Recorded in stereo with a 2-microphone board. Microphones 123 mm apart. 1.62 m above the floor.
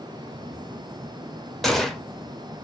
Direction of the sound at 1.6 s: Centre (ahead or behind).